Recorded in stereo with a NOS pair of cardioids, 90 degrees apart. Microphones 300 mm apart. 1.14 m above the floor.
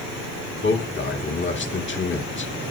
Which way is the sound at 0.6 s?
40° left.